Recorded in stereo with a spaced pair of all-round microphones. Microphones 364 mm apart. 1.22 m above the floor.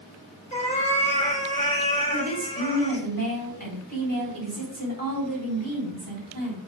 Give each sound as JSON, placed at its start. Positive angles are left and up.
{"t": 0.5, "sound": "a cat meowing", "side_deg": 20, "distance_m": 1.6}
{"t": 2.1, "sound": "a woman speaking", "side_deg": -70, "distance_m": 3.5}